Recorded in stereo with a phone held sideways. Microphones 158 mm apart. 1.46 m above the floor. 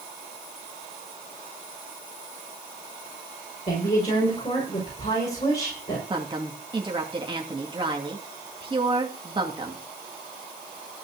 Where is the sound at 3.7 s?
40° left (ahead or behind), 6 m.